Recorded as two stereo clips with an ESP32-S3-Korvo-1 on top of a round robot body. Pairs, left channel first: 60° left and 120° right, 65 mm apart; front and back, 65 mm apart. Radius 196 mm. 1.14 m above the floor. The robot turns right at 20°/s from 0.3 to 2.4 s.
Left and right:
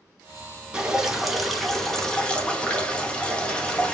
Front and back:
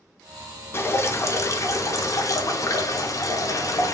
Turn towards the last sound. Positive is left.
turn(degrees=-10)